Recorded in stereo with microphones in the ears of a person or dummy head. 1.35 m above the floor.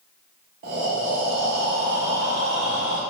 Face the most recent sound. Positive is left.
turn(degrees=-40)  # may be behind; listen again after turning